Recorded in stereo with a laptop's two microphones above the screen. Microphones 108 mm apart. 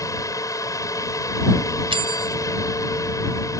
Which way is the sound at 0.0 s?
30° left (ahead or behind).